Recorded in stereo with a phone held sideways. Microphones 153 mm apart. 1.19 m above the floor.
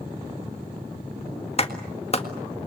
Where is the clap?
40° left (ahead or behind), 1.7 m.